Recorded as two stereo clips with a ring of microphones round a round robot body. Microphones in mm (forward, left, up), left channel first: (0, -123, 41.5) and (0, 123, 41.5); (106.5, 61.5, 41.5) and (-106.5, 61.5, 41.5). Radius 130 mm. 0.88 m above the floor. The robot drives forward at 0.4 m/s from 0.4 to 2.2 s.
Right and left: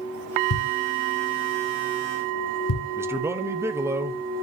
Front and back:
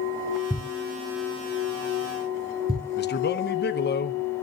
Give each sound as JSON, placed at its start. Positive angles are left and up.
{"t": 0.5, "sound": "a thud", "azimuth_deg": -85, "distance_m": 1.8}
{"t": 3.0, "sound": "a man speaking", "azimuth_deg": 15, "distance_m": 1.0}